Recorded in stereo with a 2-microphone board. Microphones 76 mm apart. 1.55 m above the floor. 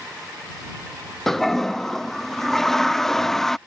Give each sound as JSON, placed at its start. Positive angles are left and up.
{"t": 1.3, "sound": "a toilet flushing", "side_deg": 5}